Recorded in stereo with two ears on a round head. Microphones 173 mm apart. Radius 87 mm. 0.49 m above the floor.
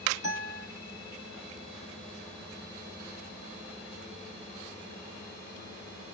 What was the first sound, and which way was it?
A guitar, 15° right (ahead or behind).